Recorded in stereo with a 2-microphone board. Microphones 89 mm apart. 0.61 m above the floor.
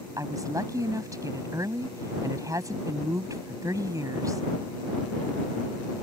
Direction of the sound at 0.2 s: 40° right (ahead or behind).